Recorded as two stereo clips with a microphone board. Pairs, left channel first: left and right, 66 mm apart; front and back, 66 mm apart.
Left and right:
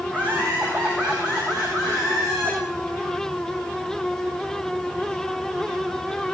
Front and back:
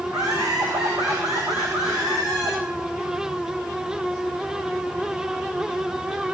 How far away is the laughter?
About 7.5 m.